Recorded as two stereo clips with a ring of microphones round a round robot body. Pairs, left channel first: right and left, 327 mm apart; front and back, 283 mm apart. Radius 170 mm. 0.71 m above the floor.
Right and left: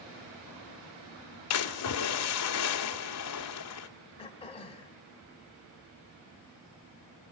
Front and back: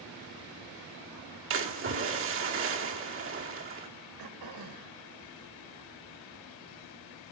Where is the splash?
130° right, 1.9 m.